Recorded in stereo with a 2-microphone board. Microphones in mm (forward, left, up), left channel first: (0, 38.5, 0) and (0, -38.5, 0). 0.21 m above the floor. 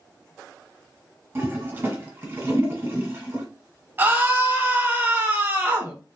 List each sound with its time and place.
1.4 s a toilet flushing: 30° right (ahead or behind), 1.3 m
4.0 s a scream: 30° right (ahead or behind), 1.1 m